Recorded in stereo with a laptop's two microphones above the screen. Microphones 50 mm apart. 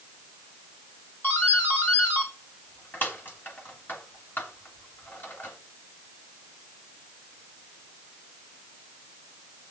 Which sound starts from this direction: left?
A doorbell, at 1.2 s.